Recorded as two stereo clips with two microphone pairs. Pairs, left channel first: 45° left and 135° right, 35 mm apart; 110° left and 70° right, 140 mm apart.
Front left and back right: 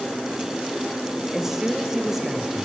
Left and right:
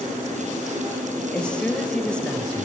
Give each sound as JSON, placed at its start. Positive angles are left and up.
{"t": 1.3, "sound": "a woman speaking", "azimuth_deg": 175, "distance_m": 0.9}